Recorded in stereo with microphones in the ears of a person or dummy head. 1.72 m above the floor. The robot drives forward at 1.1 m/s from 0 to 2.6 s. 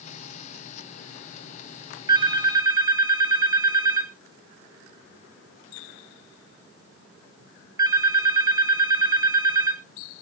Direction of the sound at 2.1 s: 20° right (ahead or behind).